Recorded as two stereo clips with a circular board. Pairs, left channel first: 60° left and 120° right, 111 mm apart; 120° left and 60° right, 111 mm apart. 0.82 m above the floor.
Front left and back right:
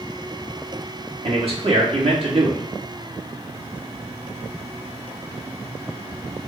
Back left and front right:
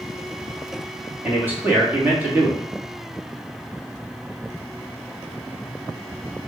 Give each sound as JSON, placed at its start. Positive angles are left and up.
{"t": 1.2, "sound": "a man speaking", "azimuth_deg": -130, "distance_m": 1.7}